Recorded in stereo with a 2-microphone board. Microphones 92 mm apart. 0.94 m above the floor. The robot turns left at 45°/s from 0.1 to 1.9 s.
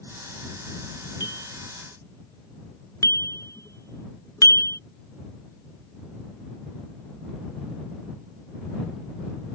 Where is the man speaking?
No man speaking in this recording.